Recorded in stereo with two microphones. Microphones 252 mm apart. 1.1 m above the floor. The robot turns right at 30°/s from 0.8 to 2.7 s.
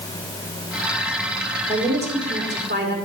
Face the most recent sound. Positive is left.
turn(degrees=-135)